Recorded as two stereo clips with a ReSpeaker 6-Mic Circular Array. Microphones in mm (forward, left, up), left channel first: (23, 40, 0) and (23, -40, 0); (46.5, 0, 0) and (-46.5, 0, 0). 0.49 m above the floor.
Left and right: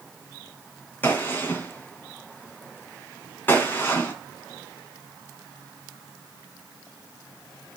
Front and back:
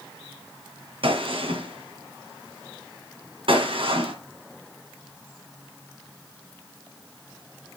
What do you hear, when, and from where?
1.0 s a gunshot: 155° left, 1.7 m